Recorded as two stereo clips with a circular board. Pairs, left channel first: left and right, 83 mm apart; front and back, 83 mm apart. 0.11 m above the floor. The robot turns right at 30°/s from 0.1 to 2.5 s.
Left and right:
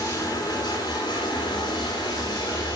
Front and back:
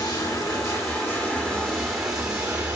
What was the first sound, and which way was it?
Running water, 40° left.